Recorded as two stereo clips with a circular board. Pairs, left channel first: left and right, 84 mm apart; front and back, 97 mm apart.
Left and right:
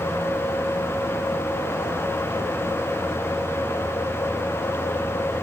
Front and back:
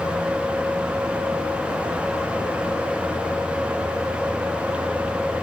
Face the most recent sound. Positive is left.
No sound to turn to.